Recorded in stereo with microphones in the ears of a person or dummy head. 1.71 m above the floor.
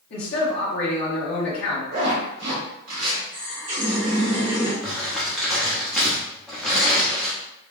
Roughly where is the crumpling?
Centre.